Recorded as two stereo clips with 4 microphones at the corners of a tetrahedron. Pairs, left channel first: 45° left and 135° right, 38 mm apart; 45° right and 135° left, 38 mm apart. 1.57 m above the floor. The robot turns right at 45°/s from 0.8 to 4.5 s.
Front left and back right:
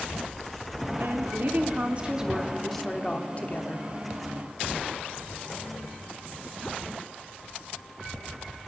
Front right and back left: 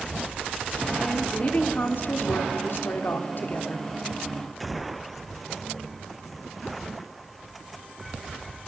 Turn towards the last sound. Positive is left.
turn(degrees=40)